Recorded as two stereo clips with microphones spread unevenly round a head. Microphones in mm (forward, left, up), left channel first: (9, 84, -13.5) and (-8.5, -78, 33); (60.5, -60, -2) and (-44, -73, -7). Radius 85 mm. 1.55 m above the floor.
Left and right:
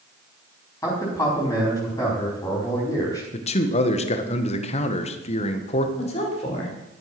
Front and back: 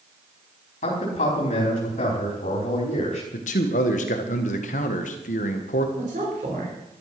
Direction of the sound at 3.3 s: 30° left.